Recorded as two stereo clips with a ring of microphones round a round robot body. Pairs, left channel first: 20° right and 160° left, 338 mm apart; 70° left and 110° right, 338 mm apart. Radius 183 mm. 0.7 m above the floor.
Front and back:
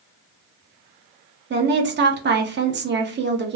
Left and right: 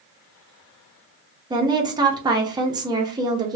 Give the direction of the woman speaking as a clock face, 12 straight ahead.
6 o'clock.